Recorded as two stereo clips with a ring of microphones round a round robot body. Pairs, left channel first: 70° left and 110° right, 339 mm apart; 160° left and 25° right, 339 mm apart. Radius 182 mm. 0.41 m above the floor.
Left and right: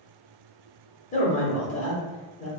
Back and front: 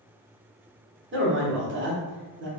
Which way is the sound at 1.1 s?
10° left.